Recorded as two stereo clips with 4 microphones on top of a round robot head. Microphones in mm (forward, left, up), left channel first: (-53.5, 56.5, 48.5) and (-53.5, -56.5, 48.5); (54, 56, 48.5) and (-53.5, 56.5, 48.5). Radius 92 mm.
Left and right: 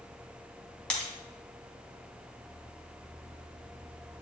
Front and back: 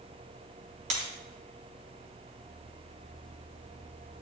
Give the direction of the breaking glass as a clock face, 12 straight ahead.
6 o'clock.